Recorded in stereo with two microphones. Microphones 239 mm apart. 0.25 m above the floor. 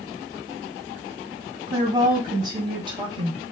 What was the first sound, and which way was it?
A woman speaking, 15° right (ahead or behind).